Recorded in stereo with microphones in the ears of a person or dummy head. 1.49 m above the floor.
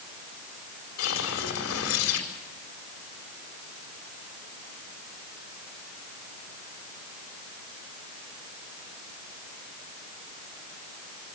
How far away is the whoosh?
About 4.5 m.